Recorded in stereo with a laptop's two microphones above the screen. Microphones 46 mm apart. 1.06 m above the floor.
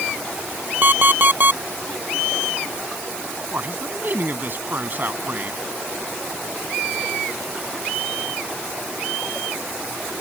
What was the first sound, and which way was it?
An alarm clock, 40° right (ahead or behind).